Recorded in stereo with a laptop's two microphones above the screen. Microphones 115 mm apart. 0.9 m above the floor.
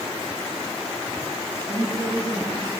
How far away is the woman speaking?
About 7 m.